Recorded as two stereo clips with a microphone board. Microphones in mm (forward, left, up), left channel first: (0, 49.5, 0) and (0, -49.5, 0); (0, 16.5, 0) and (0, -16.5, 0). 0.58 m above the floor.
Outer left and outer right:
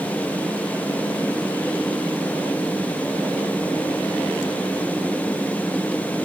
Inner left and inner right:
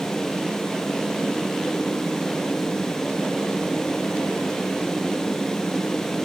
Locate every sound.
Only background noise.